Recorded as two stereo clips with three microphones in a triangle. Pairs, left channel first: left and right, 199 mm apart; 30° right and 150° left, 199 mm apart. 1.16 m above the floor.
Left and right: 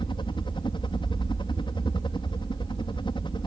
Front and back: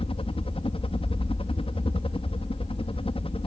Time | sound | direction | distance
0.0 | a helicopter | 25° left | ?